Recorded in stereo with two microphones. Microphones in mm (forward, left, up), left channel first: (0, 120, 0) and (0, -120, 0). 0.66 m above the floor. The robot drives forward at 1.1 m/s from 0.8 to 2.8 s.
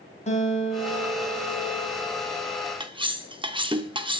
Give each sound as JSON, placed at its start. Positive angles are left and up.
{"t": 0.3, "sound": "a guitar", "side_deg": 30, "distance_m": 3.0}
{"t": 2.8, "sound": "cutlery clinking", "side_deg": -20, "distance_m": 0.6}